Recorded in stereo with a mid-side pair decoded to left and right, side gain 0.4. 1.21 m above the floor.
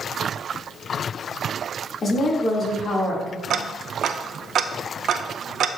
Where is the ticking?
65° right, 0.6 m.